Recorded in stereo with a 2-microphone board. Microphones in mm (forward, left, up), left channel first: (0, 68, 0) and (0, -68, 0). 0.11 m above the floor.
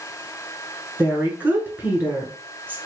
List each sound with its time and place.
1.0 s a woman speaking: 15° right (ahead or behind), 1.1 m